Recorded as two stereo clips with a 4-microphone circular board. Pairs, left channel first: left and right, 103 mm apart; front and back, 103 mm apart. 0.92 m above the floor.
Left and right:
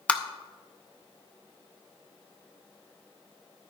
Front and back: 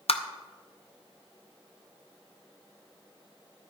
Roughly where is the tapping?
Ahead.